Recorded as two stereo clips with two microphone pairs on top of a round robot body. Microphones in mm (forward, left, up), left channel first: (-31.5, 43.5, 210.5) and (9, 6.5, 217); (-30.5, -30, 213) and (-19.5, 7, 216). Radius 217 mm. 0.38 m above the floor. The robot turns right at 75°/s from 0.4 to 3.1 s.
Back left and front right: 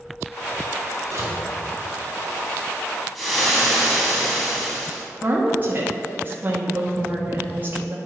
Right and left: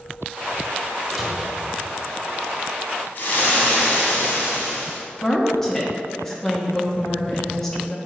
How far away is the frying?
About 3 m.